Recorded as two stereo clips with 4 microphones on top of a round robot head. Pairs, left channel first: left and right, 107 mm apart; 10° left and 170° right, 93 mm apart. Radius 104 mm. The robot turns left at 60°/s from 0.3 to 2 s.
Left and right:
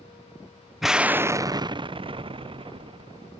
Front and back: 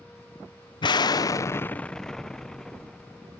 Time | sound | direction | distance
0.8 | an explosion | straight ahead | ?